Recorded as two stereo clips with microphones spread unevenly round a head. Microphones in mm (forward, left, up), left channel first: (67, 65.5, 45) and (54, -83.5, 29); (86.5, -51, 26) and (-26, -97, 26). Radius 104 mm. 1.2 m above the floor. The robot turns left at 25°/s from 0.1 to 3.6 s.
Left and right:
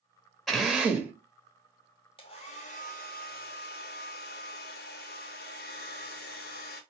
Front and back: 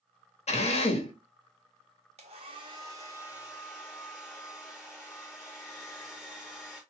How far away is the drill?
About 1.5 m.